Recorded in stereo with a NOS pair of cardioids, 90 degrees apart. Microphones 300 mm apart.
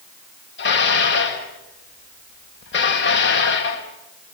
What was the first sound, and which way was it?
Dishes clattering, 40° left.